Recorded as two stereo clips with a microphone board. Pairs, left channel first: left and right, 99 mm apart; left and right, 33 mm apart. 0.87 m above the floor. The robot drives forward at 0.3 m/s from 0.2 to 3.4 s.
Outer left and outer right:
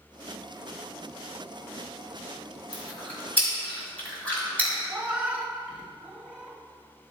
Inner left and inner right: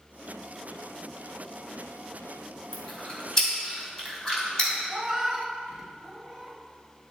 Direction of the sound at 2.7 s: 20° left (ahead or behind).